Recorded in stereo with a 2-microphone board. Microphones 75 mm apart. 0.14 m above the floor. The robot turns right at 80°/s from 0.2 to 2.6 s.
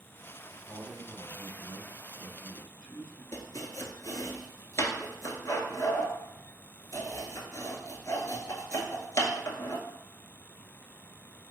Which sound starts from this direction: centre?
A man speaking, at 0.7 s.